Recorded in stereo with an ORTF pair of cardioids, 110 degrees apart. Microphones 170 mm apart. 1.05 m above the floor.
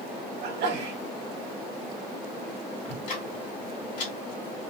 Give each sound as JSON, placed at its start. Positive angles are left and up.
{"t": 0.4, "sound": "a sneeze", "azimuth_deg": -70, "distance_m": 1.5}
{"t": 2.9, "sound": "ticking", "azimuth_deg": 60, "distance_m": 2.5}